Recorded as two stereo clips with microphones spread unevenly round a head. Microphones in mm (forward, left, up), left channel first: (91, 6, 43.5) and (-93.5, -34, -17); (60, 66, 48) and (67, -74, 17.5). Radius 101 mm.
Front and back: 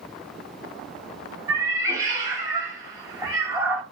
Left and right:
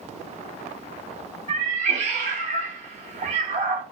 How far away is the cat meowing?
About 0.9 m.